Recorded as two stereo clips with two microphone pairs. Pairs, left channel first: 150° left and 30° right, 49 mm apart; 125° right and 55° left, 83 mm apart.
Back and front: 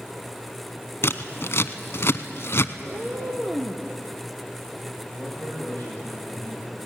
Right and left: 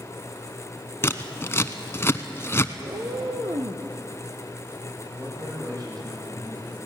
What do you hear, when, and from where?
1.0 s scissors: 175° left, 0.8 m
2.8 s a cat meowing: 35° left, 1.9 m
5.2 s a man speaking: 95° left, 8.5 m